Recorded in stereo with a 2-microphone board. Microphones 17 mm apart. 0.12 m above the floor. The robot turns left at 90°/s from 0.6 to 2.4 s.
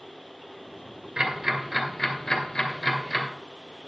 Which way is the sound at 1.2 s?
45° right (ahead or behind).